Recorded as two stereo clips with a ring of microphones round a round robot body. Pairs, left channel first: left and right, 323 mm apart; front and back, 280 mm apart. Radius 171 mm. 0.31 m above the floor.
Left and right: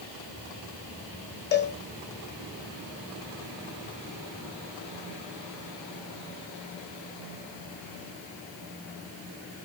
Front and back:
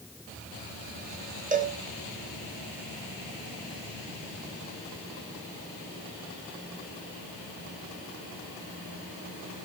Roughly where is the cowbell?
Behind left.